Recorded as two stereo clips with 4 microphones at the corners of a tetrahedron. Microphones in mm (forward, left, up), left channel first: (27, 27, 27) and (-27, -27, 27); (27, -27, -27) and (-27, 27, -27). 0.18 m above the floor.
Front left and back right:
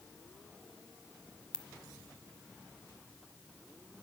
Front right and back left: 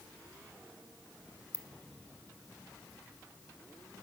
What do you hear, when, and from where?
1.5 s a ringtone: 110° left, 1.1 m